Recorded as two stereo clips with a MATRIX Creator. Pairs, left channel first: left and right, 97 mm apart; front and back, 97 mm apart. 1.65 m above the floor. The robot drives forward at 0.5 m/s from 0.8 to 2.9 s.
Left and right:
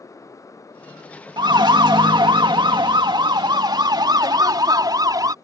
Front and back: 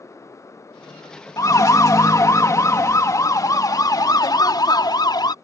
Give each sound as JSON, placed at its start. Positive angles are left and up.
{"t": 1.4, "sound": "a siren", "azimuth_deg": -55}